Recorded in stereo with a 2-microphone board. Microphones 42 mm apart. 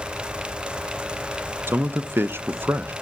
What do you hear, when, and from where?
1.7 s a man speaking: 60° right (ahead or behind), 0.8 m